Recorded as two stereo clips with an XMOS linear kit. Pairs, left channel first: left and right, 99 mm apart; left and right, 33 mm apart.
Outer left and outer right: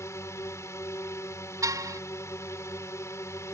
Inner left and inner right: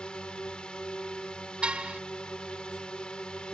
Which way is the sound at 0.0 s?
30° left (ahead or behind).